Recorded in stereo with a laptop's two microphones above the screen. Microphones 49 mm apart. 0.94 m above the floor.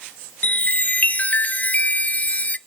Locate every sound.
0.4 s a chime: 30° left (ahead or behind), 0.5 m